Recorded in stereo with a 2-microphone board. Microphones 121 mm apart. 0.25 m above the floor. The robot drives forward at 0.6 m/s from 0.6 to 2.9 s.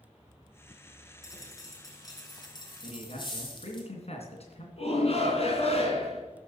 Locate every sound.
1.2 s a dropped coin: 30° left (ahead or behind), 3 m; by 3.8 s 40° left (ahead or behind), 2.5 m
2.8 s a man speaking: 60° left (ahead or behind), 2.5 m
4.8 s a shout: 55° left (ahead or behind), 3 m